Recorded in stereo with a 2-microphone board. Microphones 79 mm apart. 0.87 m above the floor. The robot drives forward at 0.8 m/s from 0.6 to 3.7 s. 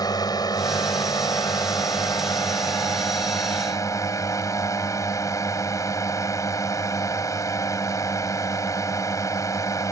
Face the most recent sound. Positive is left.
turn(degrees=45)  # may be behind; listen again after turning